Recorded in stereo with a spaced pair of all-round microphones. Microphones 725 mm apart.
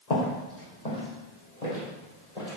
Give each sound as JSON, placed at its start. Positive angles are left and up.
{"t": 0.1, "sound": "footsteps", "side_deg": 65, "distance_m": 3.0}